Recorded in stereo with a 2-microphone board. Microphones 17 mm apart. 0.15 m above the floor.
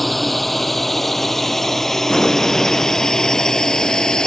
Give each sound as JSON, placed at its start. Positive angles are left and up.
{"t": 0.0, "sound": "a drone", "side_deg": 5}
{"t": 2.1, "sound": "an explosion", "side_deg": 40}